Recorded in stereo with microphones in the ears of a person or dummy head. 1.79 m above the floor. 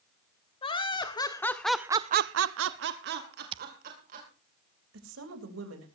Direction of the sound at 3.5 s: 30° right (ahead or behind).